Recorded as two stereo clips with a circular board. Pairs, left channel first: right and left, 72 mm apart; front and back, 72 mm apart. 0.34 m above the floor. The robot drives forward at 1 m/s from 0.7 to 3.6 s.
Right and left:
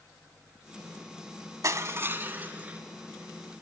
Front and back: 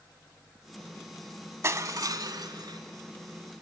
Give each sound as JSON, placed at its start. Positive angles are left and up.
{"t": 1.6, "sound": "crushing", "azimuth_deg": 130, "distance_m": 0.8}